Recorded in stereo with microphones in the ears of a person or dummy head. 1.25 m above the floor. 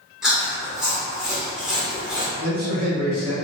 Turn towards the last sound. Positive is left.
turn(degrees=-45)  # may be behind; listen again after turning